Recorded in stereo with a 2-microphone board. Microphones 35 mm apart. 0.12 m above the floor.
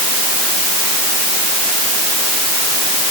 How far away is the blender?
No blender in this recording.